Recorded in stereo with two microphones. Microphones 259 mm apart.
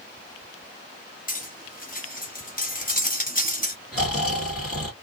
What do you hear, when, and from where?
1.3 s cutlery clinking: 35° left (ahead or behind), 1.0 m
3.9 s snoring: 60° left (ahead or behind), 2 m